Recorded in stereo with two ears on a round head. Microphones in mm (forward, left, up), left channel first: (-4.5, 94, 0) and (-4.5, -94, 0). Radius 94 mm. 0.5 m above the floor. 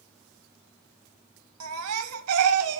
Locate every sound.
1.6 s a baby crying: 80° right, 1.4 m